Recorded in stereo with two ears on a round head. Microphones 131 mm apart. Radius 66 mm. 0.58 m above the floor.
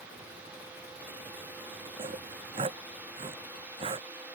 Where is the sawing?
35° right (ahead or behind).